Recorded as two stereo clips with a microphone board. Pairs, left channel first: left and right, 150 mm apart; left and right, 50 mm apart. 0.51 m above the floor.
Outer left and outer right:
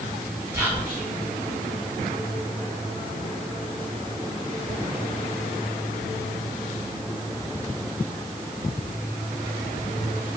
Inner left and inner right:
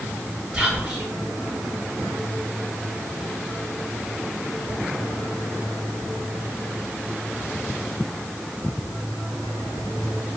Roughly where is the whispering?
Centre.